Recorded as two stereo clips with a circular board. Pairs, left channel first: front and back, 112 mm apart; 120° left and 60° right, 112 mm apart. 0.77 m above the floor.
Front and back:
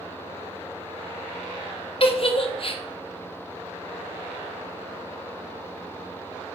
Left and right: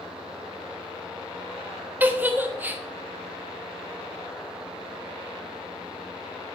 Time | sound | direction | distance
2.0 | a giggle | 10° left | 1.3 m